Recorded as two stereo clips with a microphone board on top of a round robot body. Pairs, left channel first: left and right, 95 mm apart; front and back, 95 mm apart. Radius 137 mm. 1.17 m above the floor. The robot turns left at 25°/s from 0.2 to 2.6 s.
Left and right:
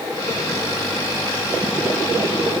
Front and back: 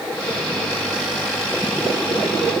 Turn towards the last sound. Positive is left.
No sound to turn to.